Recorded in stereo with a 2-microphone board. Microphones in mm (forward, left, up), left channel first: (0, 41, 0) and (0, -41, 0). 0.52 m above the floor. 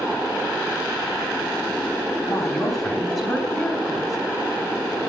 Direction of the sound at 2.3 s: 5° left (ahead or behind).